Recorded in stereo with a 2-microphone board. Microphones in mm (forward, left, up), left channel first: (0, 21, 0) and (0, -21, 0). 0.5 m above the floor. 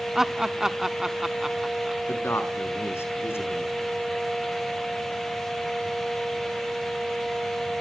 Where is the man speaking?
75° left (ahead or behind), 5 m.